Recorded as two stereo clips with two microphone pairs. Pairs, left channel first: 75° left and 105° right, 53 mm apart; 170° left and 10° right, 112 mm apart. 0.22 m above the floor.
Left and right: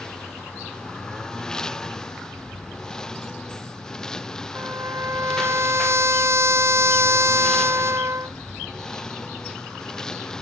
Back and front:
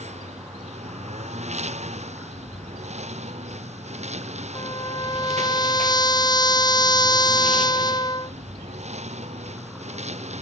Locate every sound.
0.0 s a lawn mower: straight ahead
4.5 s a trumpet: 135° right